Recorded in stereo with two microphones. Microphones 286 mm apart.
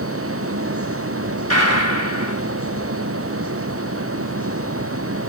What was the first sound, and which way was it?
A gunshot, 55° right (ahead or behind).